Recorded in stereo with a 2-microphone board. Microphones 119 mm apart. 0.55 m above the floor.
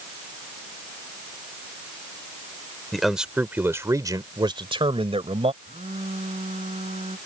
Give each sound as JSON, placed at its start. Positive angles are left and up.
{"t": 2.9, "sound": "a man speaking", "side_deg": 0}
{"t": 5.6, "sound": "a phone buzzing", "side_deg": -65}